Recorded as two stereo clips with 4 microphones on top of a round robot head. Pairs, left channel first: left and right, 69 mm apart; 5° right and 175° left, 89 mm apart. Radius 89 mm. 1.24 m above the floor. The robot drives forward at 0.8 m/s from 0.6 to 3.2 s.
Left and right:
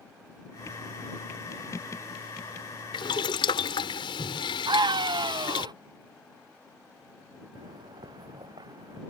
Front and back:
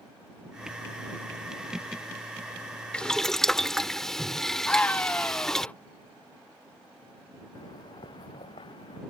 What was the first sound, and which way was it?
Boiling, 75° left.